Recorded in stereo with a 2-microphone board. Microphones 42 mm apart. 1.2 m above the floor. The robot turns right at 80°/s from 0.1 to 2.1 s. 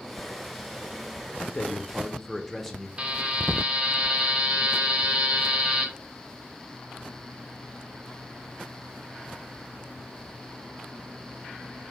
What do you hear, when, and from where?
1.4 s a man speaking: 120° left, 0.7 m; by 2.9 s 175° left, 0.7 m
3.0 s a buzzer: 25° right (ahead or behind), 0.7 m